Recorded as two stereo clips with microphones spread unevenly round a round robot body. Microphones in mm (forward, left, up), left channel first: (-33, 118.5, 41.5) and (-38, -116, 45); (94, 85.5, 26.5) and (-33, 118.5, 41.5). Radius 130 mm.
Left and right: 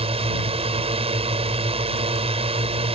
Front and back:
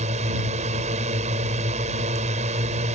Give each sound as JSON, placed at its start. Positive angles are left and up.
{"t": 0.0, "sound": "a drone", "azimuth_deg": -155}